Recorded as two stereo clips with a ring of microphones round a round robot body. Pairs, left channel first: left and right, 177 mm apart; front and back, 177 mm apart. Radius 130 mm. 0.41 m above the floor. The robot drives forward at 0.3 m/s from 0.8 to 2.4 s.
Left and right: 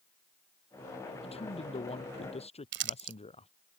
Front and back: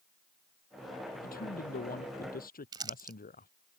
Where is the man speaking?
35° left.